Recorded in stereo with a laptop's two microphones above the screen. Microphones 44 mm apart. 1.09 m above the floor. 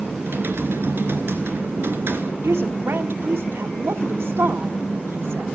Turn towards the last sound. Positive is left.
turn(degrees=-65)  # may be behind; listen again after turning